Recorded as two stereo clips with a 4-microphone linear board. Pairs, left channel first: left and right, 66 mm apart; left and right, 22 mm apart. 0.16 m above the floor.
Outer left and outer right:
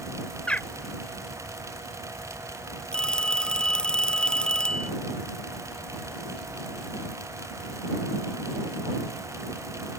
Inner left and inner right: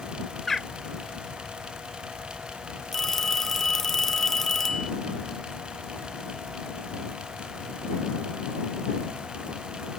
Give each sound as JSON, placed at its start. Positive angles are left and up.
{"t": 0.5, "sound": "a bird", "side_deg": 20}
{"t": 2.9, "sound": "a phone ringing", "side_deg": 10}